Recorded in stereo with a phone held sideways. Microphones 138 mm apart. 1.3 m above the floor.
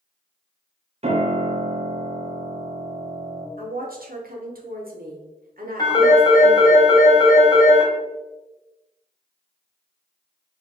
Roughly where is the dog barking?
I don't hear a dog barking.